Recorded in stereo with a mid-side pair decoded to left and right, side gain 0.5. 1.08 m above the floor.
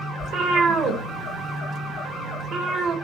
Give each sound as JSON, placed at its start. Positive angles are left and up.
{"t": 0.2, "sound": "a cat meowing", "azimuth_deg": -65, "distance_m": 2.0}